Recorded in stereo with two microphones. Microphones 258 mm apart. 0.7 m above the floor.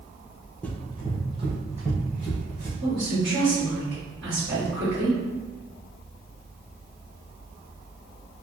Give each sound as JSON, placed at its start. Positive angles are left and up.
{"t": 0.6, "sound": "running footsteps", "side_deg": 5, "distance_m": 0.8}
{"t": 2.8, "sound": "a woman speaking", "side_deg": -50, "distance_m": 2.0}